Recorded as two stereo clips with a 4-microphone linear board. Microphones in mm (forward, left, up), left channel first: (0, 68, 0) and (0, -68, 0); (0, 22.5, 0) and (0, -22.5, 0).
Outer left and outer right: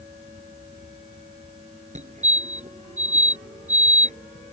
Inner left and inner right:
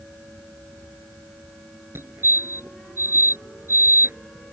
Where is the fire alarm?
60° right (ahead or behind).